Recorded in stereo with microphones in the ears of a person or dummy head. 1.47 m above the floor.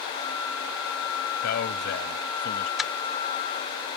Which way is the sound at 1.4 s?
65° left (ahead or behind).